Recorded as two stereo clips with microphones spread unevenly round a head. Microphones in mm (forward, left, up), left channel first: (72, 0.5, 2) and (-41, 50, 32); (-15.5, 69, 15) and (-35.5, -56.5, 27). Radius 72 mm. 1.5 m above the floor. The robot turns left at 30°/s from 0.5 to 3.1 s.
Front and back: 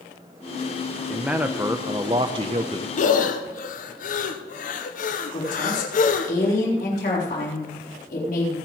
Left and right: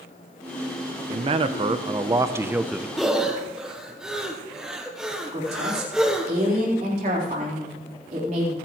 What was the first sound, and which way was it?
A man speaking, 125° right.